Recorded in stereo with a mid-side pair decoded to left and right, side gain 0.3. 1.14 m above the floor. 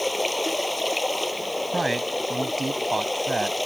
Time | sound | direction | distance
0.0 | running water | 15° left | ?
1.7 | a man speaking | 30° right | ?